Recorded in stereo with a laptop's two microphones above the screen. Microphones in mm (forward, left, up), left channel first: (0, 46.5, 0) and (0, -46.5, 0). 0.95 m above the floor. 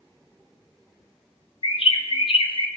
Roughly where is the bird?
Left.